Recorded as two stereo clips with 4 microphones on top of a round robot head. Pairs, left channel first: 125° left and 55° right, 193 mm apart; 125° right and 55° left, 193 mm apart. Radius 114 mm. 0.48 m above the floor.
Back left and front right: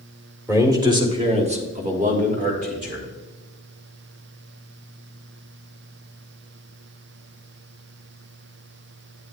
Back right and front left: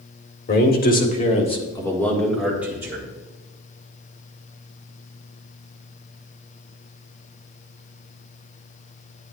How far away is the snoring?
I don't hear snoring.